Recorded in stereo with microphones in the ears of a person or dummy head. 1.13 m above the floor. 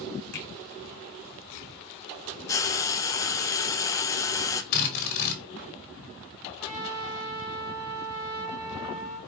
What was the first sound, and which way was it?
A finger snap, 50° left (ahead or behind).